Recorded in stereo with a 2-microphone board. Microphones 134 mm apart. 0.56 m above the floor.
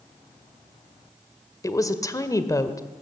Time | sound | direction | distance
1.6 | a woman speaking | 25° left (ahead or behind) | 1.6 m